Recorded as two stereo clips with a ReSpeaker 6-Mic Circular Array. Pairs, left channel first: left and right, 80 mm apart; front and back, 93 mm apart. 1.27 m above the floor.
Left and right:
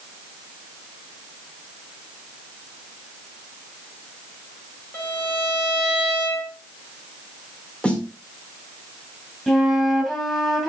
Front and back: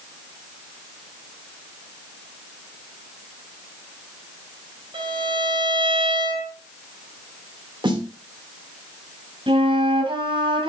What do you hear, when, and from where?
4.9 s a violin: 145° left, 3.5 m
7.8 s a snare drum: 165° left, 1.5 m
9.5 s a flute: 175° left, 2.5 m